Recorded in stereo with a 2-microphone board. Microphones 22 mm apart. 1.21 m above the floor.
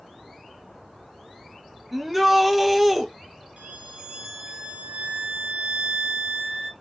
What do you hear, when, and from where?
1.9 s a shout: 5° right (ahead or behind), 1.1 m
3.6 s a violin: 70° right (ahead or behind), 2 m